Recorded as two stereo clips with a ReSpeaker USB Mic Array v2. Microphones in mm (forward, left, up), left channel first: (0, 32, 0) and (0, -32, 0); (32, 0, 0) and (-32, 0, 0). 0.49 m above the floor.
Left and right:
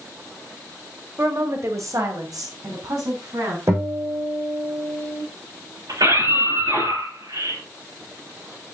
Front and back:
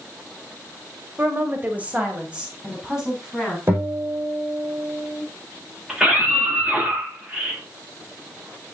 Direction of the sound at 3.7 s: 130° right.